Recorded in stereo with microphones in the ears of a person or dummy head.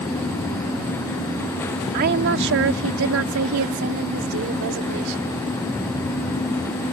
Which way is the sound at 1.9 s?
55° right (ahead or behind).